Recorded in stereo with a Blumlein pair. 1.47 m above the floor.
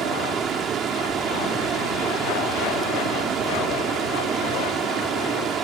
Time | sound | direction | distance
0.0 | running water | 25° right | ?